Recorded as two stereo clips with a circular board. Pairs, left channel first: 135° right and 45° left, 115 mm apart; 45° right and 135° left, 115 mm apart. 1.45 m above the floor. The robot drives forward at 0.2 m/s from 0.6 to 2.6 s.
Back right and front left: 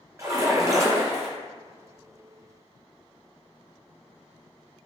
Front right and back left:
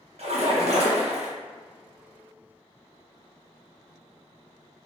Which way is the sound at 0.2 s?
105° left.